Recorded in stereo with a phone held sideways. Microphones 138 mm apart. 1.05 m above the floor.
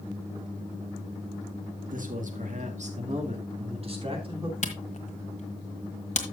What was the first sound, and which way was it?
A man speaking, 75° right (ahead or behind).